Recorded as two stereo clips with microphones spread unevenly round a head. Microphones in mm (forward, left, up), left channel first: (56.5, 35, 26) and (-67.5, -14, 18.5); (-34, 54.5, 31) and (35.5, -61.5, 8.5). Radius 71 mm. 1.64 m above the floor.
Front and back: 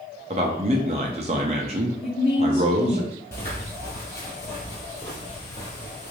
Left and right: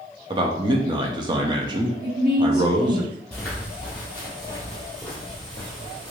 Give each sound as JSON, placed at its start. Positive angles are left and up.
{"t": 0.3, "sound": "a man speaking", "azimuth_deg": -120, "distance_m": 0.6}
{"t": 2.0, "sound": "a woman speaking", "azimuth_deg": -35, "distance_m": 0.8}
{"t": 3.3, "sound": "footsteps", "azimuth_deg": 60, "distance_m": 1.8}